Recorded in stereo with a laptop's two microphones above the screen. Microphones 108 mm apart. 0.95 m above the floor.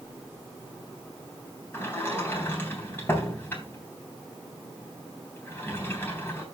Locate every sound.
1.7 s a sliding door: 20° left (ahead or behind), 3.5 m